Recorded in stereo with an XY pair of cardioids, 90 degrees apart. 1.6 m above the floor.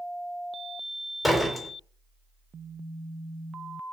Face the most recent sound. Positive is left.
turn(degrees=10)